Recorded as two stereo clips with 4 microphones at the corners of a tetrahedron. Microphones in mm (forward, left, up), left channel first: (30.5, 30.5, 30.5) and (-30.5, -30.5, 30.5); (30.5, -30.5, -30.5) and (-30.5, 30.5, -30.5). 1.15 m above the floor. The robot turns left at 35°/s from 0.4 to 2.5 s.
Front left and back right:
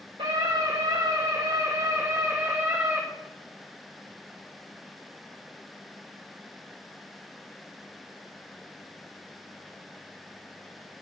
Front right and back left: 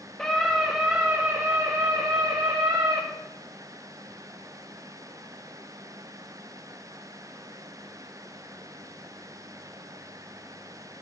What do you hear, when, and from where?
0.2 s a scream: 130° right, 1.3 m; by 3.0 s 155° left, 1.3 m